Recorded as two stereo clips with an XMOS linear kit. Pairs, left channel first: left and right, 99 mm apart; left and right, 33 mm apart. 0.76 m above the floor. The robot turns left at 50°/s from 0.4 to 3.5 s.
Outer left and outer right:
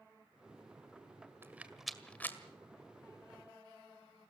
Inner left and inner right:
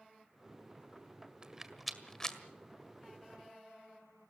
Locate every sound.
1.4 s a rattle: 25° right (ahead or behind), 1.8 m; by 2.4 s 25° left (ahead or behind), 1.8 m